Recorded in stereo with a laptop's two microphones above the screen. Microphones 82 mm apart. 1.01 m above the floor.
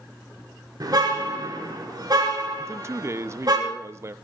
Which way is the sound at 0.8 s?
55° right (ahead or behind).